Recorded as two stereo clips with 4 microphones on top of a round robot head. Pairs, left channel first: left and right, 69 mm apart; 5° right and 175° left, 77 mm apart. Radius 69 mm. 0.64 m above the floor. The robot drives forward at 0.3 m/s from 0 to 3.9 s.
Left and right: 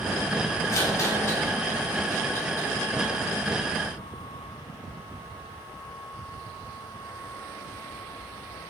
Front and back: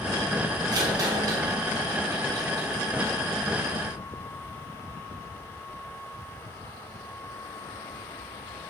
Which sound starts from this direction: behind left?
A rattle, at 0.7 s.